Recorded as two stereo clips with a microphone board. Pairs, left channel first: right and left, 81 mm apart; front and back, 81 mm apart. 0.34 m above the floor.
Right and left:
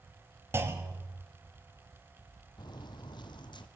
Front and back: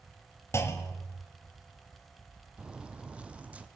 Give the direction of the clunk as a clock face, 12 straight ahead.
11 o'clock.